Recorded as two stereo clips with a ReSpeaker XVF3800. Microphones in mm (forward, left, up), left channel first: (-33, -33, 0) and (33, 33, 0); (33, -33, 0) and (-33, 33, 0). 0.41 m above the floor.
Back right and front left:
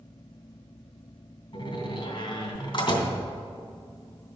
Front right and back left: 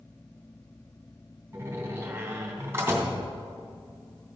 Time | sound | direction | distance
1.5 | a door slam | 155° right | 2.5 m